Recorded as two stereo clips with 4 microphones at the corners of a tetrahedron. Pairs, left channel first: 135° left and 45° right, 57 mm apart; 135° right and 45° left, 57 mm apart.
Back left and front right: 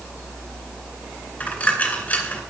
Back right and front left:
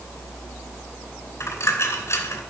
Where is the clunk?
I don't hear a clunk.